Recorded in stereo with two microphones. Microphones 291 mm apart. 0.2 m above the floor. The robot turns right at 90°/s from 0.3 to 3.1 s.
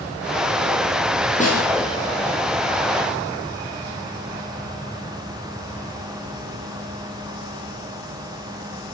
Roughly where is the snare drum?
Left.